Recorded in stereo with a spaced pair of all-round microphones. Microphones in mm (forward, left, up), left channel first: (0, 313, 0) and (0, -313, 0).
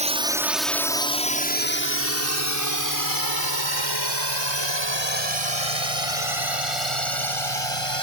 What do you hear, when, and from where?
0.0 s a drone: 10° right (ahead or behind); by 8.0 s 55° left (ahead or behind)